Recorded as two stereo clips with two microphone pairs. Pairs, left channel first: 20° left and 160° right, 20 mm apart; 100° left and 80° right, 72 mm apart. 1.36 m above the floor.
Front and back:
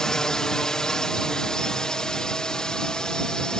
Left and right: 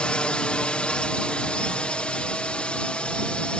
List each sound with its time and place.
0.0 s a drone: 35° left; by 3.6 s 30° left